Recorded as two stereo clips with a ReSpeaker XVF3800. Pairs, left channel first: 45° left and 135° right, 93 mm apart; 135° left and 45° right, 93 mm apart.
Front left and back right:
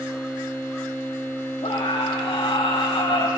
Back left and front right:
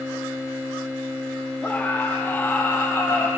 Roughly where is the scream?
Ahead left.